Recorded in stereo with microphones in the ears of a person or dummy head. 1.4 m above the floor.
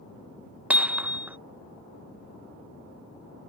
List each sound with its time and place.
0.7 s hammering: 10° right (ahead or behind)